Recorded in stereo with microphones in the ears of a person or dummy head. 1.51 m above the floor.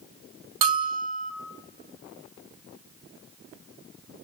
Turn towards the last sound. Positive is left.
turn(degrees=-25)  # may be behind; listen again after turning